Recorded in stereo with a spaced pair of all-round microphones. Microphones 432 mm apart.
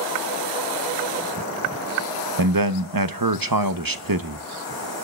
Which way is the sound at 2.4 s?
50° right (ahead or behind).